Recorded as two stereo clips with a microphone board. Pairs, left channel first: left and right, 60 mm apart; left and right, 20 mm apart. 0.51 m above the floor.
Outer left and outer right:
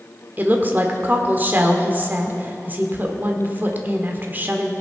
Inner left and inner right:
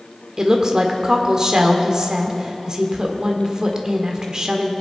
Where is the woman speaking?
35° right (ahead or behind), 1.4 m.